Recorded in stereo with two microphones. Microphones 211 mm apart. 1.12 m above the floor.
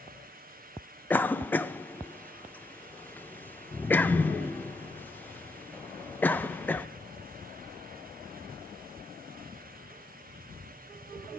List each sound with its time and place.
1.1 s a cough: 10° left (ahead or behind), 0.5 m